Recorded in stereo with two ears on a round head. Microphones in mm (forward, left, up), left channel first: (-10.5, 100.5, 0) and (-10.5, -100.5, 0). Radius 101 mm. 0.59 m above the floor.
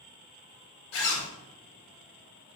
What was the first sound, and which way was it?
A zipper, 65° left (ahead or behind).